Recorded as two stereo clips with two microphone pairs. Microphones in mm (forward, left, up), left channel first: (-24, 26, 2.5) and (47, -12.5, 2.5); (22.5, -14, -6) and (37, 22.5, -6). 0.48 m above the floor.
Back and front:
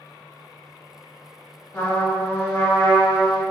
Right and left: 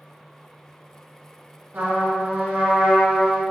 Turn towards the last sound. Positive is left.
turn(degrees=90)